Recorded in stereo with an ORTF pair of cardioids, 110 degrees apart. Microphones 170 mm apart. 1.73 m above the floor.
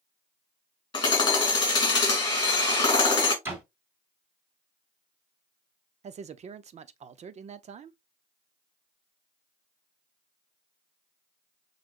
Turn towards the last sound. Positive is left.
turn(degrees=-40)